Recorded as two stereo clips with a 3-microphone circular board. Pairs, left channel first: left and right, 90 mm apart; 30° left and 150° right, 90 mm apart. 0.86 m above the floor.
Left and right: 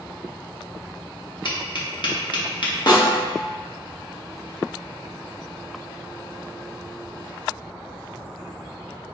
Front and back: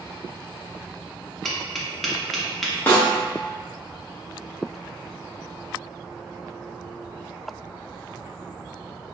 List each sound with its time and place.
1.4 s tapping: 120° left, 0.7 m
2.9 s a snare drum: 90° left, 0.9 m